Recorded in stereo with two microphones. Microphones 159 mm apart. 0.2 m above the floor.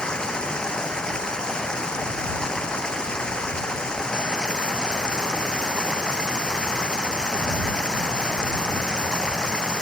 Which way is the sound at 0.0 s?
5° left (ahead or behind).